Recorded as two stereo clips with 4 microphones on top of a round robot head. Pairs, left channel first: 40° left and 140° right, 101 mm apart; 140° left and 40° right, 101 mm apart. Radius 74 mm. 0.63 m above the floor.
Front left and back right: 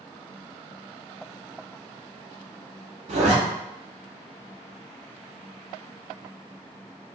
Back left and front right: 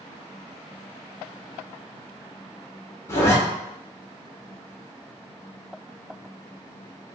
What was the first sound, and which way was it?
A zipper, 155° right.